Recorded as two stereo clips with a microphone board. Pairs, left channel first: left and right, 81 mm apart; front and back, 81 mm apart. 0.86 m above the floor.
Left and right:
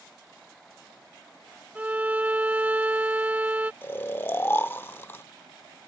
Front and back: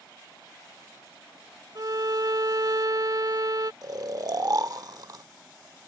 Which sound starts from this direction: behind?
A violin, at 1.8 s.